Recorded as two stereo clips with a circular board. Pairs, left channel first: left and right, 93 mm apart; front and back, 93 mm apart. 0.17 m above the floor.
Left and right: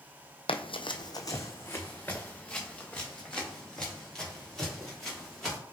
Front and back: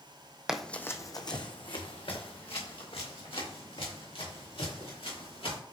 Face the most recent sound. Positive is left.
turn(degrees=5)